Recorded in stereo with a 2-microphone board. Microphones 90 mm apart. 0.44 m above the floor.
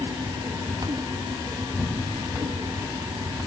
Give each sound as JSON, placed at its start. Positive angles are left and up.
{"t": 1.6, "sound": "an explosion", "side_deg": 15, "distance_m": 6.5}